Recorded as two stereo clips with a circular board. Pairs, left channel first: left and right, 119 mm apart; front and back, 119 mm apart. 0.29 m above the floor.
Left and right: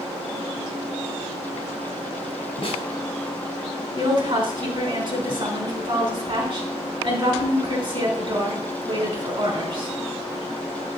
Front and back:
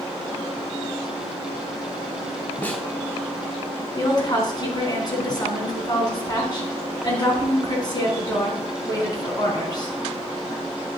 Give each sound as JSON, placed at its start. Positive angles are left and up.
{"t": 2.6, "sound": "a snare drum", "azimuth_deg": 70, "distance_m": 1.4}
{"t": 4.0, "sound": "a woman speaking", "azimuth_deg": -50, "distance_m": 3.5}